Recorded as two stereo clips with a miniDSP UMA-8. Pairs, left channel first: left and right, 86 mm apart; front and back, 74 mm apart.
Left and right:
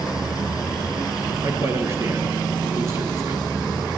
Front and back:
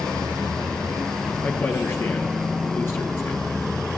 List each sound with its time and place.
1.4 s a man speaking: 40° right, 2 m